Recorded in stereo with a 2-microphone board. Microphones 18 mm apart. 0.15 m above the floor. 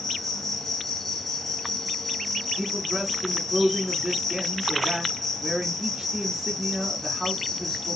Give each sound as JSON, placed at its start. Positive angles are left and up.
{"t": 0.0, "sound": "an insect", "side_deg": 15, "distance_m": 1.0}
{"t": 2.6, "sound": "a man speaking", "side_deg": -20, "distance_m": 1.3}